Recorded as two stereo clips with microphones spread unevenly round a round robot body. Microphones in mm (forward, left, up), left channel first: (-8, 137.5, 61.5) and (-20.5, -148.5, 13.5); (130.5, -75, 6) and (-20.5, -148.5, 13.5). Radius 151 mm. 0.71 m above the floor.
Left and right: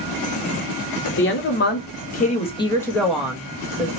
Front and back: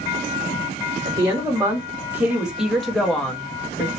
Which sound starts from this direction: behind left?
A woman speaking, at 1.1 s.